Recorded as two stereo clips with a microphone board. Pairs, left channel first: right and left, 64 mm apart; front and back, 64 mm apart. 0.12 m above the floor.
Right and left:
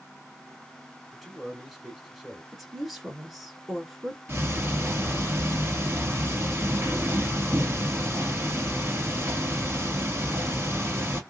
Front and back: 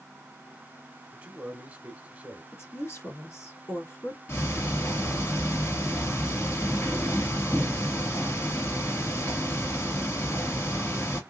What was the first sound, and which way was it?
A man speaking, 170° left.